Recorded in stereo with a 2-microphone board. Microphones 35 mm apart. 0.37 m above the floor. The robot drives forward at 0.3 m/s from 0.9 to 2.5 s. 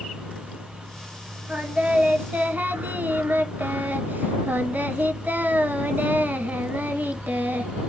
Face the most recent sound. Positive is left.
turn(degrees=-65)  # may be behind; listen again after turning